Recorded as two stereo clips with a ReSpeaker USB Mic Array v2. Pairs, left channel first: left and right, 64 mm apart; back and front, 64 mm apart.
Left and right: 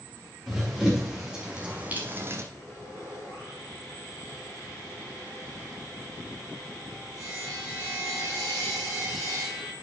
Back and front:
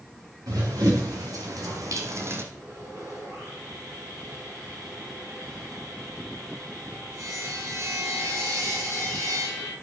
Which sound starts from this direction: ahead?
Running footsteps, at 0.5 s.